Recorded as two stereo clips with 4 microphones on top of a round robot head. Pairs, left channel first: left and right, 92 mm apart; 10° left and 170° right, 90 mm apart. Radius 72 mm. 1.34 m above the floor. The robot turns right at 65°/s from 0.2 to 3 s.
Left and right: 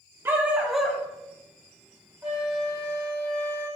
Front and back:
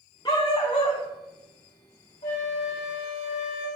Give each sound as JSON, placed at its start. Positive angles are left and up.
{"t": 0.2, "sound": "a dog barking", "azimuth_deg": -40, "distance_m": 1.0}
{"t": 2.2, "sound": "a flute", "azimuth_deg": -15, "distance_m": 4.0}